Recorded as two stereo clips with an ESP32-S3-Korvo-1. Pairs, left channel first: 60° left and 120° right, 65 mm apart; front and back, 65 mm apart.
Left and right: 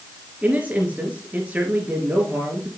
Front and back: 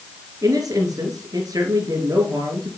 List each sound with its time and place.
0.4 s a man speaking: 175° left, 3.5 m